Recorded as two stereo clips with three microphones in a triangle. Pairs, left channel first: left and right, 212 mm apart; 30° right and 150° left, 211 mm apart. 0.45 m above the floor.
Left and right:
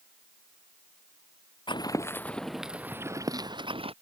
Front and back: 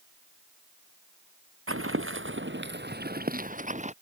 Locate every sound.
1.7 s footsteps: 155° left; by 3.9 s 155° right